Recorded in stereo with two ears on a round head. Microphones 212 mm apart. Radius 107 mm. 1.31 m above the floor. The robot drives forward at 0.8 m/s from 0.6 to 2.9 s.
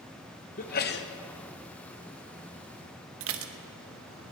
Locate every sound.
0.6 s a sneeze: 35° left (ahead or behind), 1.1 m; by 1.1 s 50° left (ahead or behind), 0.8 m
3.2 s dishes clattering: 60° right (ahead or behind), 0.9 m